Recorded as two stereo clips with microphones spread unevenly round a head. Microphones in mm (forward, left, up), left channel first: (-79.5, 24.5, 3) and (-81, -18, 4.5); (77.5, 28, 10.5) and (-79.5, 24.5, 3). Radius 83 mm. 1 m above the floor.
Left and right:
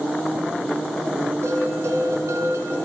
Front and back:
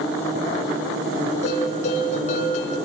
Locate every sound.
1.4 s a bell: 50° right, 6 m